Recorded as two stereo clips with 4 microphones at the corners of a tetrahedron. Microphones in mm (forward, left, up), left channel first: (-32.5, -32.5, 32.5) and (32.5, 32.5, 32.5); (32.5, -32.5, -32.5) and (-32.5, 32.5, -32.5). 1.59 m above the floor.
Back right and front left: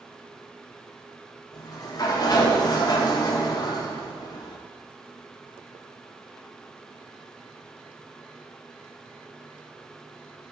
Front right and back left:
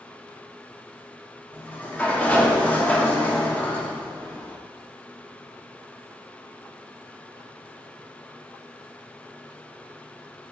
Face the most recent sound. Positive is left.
turn(degrees=-115)